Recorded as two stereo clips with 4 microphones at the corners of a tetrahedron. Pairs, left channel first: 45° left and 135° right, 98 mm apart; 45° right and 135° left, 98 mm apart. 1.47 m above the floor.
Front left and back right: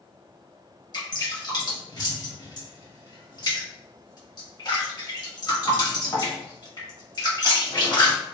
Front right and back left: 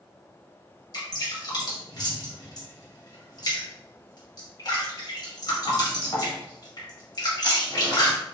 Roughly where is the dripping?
Ahead.